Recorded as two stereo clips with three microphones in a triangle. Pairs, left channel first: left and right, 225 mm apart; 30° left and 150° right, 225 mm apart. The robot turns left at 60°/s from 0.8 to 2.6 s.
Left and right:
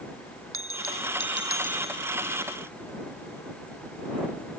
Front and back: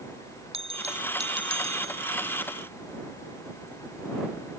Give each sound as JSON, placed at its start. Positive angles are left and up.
{"t": 0.5, "sound": "a bell", "azimuth_deg": -85}